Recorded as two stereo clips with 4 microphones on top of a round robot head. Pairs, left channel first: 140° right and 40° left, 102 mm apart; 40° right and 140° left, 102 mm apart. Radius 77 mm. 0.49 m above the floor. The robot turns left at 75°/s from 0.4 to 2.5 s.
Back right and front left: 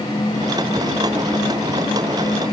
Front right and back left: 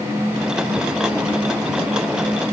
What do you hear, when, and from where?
Only background noise.